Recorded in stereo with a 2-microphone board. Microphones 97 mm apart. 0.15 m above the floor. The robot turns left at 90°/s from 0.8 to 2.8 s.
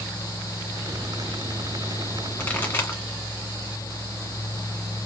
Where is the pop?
10° left (ahead or behind), 1.6 m; by 3.0 s 20° left (ahead or behind), 1.6 m.